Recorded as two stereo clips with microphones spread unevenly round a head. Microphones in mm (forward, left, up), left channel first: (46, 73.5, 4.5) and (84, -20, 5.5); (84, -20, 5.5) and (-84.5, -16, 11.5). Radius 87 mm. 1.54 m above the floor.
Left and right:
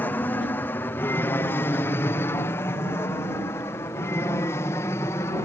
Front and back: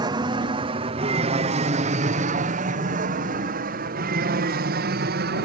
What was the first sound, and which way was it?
An aircraft, 160° left.